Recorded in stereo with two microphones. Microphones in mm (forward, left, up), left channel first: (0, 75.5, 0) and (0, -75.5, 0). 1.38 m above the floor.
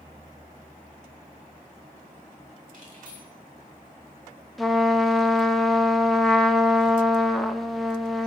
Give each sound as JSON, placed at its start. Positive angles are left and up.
{"t": 2.7, "sound": "keys jangling", "side_deg": -60, "distance_m": 3.0}
{"t": 4.6, "sound": "a trumpet", "side_deg": 0, "distance_m": 0.7}